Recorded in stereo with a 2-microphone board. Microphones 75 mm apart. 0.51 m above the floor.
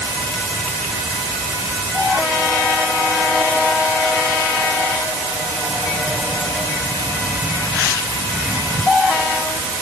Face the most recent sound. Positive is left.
No sound to turn to.